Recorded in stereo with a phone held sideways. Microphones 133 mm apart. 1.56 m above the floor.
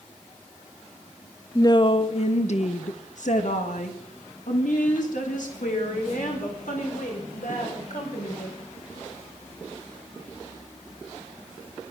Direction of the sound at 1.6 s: 25° left (ahead or behind).